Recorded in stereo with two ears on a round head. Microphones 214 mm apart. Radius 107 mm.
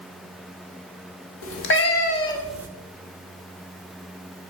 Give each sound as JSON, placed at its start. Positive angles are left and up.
{"t": 1.4, "sound": "a cat meowing", "side_deg": 60, "distance_m": 1.2}